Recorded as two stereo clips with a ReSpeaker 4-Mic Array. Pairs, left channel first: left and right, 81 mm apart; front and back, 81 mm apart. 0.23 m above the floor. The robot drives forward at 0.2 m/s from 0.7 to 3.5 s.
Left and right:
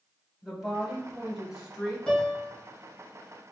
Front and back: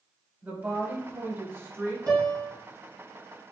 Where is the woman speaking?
165° right, 1.1 m; by 2.0 s 170° right, 1.3 m.